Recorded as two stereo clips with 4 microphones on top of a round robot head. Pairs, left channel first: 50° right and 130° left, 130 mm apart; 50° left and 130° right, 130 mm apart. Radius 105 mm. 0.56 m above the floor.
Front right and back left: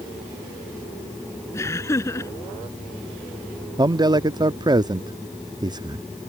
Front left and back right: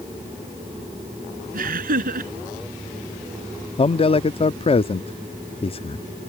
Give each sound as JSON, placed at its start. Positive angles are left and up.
{"t": 1.5, "sound": "laughter", "azimuth_deg": -120}
{"t": 3.8, "sound": "a man speaking", "azimuth_deg": 80}